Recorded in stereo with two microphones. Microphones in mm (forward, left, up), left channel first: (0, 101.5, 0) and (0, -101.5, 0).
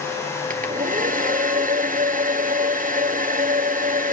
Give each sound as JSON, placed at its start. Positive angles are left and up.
{"t": 0.5, "sound": "a hair dryer", "side_deg": -40, "distance_m": 1.0}